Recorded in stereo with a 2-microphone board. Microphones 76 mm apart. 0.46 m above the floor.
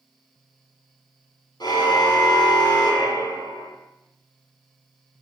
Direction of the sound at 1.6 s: 65° left (ahead or behind).